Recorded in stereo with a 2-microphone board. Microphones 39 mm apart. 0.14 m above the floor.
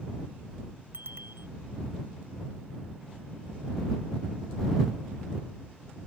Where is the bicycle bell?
70° right (ahead or behind).